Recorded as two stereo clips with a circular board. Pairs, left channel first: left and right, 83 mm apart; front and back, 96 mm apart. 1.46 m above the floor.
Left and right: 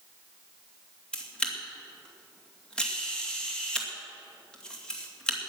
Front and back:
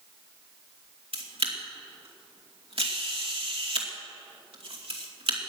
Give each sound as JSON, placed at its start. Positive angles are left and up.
{"t": 1.1, "sound": "a camera shutter", "azimuth_deg": 170, "distance_m": 2.5}